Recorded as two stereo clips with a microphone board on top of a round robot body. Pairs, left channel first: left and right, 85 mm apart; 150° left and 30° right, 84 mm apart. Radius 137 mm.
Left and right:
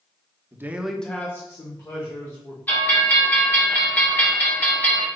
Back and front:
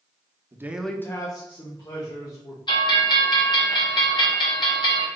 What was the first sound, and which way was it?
A man speaking, 55° right.